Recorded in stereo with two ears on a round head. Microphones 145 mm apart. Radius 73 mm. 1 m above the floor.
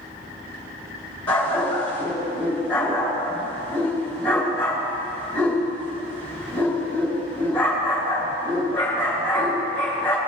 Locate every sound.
1.3 s a dog barking: 10° left (ahead or behind), 3.5 m